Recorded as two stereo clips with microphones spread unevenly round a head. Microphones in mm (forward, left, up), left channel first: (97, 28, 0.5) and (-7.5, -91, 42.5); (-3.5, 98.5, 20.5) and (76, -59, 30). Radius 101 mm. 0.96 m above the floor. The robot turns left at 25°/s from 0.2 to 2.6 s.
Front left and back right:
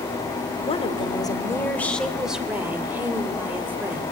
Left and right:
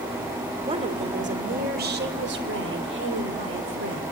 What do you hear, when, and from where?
0.7 s a woman speaking: 5° right, 3.5 m; by 4.0 s 50° right, 3.5 m